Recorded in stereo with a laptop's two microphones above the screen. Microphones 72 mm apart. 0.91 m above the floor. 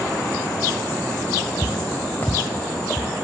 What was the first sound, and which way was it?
Footsteps, 30° left (ahead or behind).